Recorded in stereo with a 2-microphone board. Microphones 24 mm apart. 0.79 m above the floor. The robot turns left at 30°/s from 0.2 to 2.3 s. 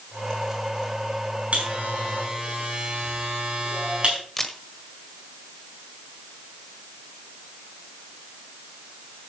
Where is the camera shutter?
15° left (ahead or behind), 1.4 m.